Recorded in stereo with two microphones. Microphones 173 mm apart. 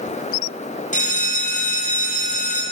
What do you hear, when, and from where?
0.9 s a bell: 50° left (ahead or behind), 3 m